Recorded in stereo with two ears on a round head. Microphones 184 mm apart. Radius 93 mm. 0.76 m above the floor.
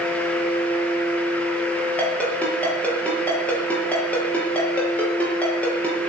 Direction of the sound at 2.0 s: 5° left (ahead or behind).